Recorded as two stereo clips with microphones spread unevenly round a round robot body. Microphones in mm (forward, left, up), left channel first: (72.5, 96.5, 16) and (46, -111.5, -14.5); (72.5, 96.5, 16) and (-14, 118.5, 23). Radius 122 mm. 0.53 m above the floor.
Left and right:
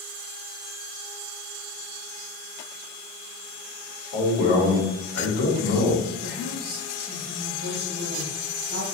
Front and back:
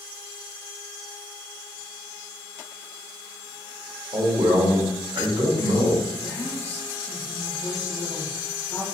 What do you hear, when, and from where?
4.1 s a man speaking: 140° left, 2.0 m
6.2 s a woman speaking: 80° right, 1.0 m